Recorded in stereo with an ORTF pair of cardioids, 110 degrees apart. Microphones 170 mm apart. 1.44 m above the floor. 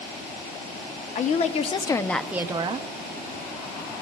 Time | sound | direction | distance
1.1 | a woman speaking | 50° left | 0.9 m